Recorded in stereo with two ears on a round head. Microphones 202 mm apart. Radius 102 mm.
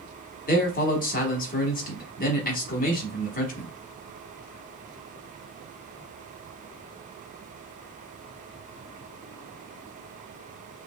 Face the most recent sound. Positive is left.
turn(degrees=40)  # may be behind; listen again after turning